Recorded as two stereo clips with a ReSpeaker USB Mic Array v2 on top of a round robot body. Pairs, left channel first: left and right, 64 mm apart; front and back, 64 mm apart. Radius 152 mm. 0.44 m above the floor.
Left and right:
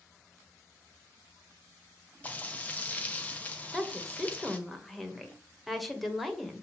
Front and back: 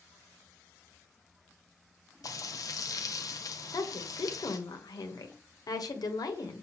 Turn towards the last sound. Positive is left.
turn(degrees=0)